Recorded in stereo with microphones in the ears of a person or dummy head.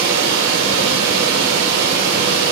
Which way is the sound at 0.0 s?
55° right (ahead or behind).